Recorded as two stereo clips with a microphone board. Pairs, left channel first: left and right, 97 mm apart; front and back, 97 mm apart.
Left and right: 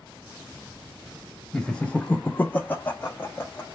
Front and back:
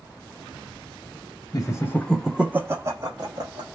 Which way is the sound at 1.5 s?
10° left.